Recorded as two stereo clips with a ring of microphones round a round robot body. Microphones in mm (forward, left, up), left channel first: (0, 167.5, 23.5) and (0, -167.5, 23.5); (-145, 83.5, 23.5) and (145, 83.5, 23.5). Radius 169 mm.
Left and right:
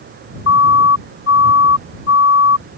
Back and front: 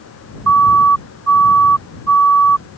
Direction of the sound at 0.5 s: 35° left.